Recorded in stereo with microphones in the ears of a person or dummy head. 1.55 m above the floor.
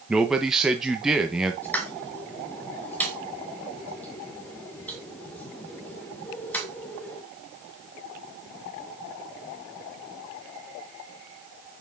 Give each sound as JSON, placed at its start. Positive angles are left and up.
{"t": 0.1, "sound": "a man speaking", "side_deg": 0, "distance_m": 1.3}
{"t": 1.6, "sound": "a pop", "side_deg": 10, "distance_m": 2.0}